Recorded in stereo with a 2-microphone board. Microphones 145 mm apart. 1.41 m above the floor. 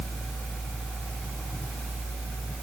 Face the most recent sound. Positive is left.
No sound to turn to.